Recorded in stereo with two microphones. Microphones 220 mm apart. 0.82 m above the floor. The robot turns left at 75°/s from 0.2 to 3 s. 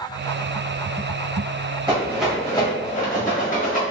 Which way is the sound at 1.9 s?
20° right (ahead or behind).